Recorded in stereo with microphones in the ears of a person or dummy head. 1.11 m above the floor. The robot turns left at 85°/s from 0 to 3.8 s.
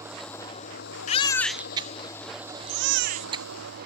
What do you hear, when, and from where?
0.0 s an engine running: 165° right; by 3.9 s 125° right
1.1 s a baby crying: 35° left; by 3.9 s 165° left